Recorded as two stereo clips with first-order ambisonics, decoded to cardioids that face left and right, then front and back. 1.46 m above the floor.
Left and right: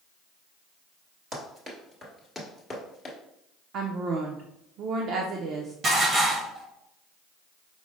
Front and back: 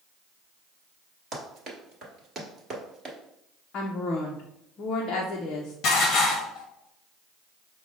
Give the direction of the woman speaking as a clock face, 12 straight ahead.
2 o'clock.